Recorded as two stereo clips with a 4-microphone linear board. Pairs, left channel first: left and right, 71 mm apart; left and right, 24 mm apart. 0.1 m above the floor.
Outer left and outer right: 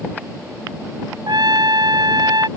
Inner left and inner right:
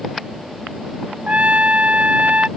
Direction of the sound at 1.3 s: 85° right.